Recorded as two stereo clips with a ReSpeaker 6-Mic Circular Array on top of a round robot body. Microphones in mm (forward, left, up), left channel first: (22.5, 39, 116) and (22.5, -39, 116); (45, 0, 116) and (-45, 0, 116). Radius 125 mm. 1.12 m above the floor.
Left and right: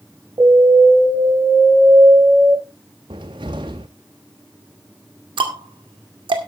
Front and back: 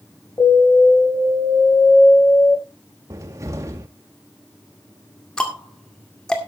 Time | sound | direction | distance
0.4 | an alarm | 55° right | 5.5 m
3.1 | a cupboard door | 125° right | 0.6 m
5.4 | ticking | 80° right | 2 m